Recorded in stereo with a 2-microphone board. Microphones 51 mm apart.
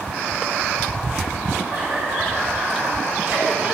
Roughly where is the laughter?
Right.